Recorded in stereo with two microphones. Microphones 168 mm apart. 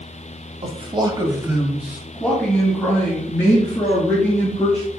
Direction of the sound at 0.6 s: 35° right (ahead or behind).